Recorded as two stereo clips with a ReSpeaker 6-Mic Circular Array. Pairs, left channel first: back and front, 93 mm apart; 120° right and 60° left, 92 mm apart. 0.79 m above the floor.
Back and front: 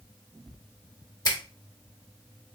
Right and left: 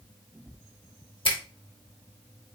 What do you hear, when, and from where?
1.2 s a finger snap: 135° right, 1.0 m